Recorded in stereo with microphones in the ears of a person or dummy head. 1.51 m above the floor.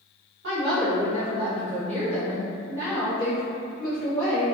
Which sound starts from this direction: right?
A woman speaking, at 0.4 s.